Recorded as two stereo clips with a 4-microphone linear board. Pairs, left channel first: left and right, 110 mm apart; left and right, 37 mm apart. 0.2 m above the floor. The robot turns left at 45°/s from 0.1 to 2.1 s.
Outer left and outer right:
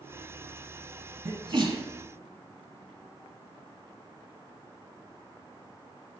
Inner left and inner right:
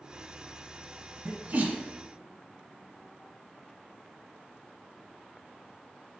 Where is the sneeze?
40° right (ahead or behind), 1.2 m; by 1.8 s 30° right (ahead or behind), 1.2 m.